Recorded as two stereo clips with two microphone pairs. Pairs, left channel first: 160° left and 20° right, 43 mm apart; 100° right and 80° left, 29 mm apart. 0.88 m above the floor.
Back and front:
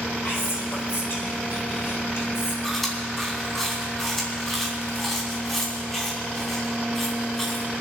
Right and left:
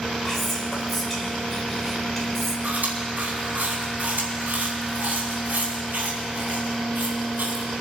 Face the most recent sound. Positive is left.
turn(degrees=80)